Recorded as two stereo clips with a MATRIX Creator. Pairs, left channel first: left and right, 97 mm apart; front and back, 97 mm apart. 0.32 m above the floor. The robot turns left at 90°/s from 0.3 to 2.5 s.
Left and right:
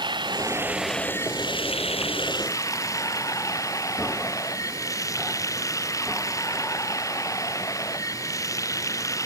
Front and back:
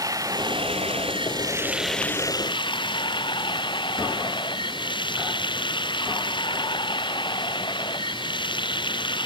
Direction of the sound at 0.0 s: 130° right.